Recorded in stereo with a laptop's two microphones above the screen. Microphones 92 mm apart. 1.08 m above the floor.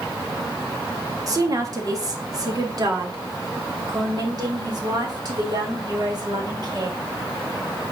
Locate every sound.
1.3 s a woman speaking: 40° right (ahead or behind), 2 m; by 7.0 s 50° right (ahead or behind), 5.5 m